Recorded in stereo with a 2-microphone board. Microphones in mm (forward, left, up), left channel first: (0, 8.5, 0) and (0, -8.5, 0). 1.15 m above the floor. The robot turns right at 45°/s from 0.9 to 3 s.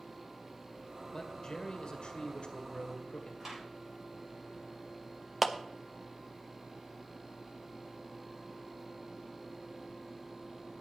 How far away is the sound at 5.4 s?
About 0.7 m.